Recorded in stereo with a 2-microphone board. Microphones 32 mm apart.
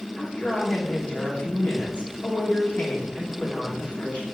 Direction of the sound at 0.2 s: 30° left (ahead or behind).